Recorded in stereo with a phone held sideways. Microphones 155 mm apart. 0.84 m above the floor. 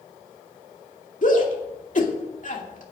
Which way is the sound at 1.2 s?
55° left (ahead or behind).